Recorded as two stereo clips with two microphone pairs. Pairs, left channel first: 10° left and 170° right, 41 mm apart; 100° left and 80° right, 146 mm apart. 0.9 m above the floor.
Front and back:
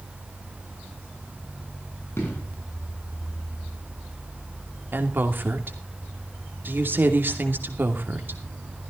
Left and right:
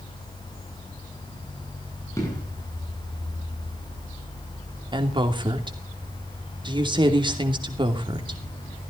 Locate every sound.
2.2 s an explosion: 30° left, 7.5 m
4.9 s a woman speaking: 135° right, 2.5 m